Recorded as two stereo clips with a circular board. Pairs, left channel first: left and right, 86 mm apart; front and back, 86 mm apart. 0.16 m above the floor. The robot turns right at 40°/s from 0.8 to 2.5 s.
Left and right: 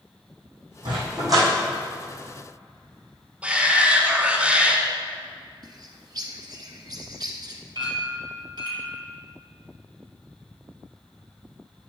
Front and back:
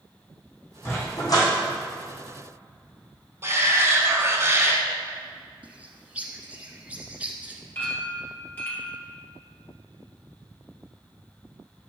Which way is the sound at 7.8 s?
65° right.